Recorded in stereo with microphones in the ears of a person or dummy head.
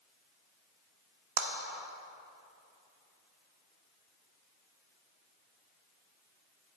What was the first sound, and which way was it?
A clap, 50° right (ahead or behind).